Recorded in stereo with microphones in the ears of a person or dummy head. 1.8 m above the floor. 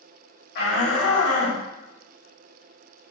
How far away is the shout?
About 1.1 m.